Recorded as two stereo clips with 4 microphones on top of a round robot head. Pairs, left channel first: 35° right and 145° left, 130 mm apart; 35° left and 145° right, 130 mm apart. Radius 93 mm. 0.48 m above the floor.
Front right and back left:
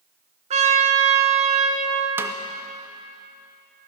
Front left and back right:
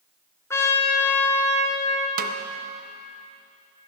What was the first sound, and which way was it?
A trumpet, 105° left.